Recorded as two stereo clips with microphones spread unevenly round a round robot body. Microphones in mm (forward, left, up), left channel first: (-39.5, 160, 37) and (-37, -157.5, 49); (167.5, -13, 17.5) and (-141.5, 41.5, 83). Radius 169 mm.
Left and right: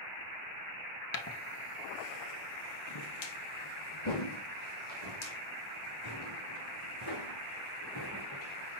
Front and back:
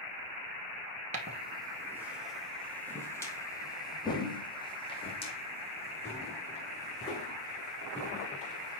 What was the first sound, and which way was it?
Footsteps, 125° left.